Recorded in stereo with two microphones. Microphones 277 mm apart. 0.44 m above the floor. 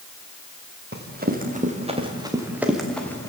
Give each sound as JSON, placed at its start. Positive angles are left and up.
{"t": 0.9, "sound": "running footsteps", "side_deg": -35, "distance_m": 5.0}